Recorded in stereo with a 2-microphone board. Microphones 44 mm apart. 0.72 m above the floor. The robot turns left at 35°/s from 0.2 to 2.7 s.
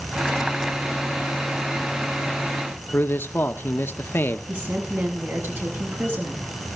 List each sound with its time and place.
2.9 s a man speaking: 50° left (ahead or behind), 1.4 m
4.5 s a woman speaking: 50° right (ahead or behind), 6.5 m